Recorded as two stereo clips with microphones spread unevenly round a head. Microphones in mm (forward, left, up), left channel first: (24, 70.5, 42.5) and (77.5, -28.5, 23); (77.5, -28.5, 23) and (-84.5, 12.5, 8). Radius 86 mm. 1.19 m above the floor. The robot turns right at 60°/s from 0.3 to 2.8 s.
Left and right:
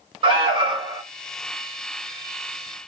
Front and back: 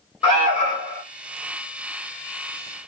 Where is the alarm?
65° right, 1.3 m; by 1.0 s 20° right, 1.3 m.